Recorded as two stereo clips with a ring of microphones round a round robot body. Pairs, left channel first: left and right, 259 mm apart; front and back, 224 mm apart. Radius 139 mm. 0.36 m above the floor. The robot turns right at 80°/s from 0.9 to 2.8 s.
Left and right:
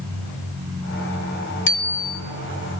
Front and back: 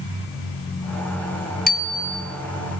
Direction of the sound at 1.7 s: 50° left.